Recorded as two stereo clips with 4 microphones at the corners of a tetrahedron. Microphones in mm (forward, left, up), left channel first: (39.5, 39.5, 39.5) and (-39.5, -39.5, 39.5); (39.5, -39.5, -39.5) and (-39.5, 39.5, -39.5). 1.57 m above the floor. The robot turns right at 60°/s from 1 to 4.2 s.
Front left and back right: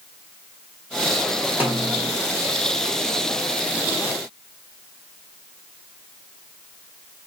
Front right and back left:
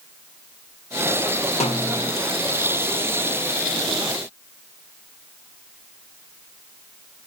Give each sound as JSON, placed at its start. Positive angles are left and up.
{"t": 1.6, "sound": "a snare drum", "azimuth_deg": -60, "distance_m": 1.3}